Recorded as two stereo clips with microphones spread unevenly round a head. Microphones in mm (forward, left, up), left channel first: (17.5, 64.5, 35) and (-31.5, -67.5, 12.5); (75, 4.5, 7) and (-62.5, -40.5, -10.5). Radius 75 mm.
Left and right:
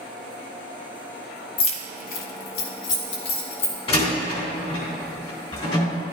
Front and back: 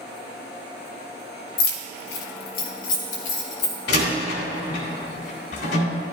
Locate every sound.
1.6 s keys jangling: 20° left, 0.8 m; by 3.8 s 65° left, 2 m
3.9 s a door slam: 20° left, 3 m